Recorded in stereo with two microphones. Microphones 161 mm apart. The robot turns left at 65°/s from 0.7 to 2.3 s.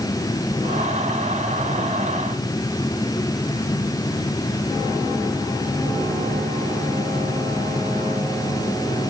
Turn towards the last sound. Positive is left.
No sound to turn to.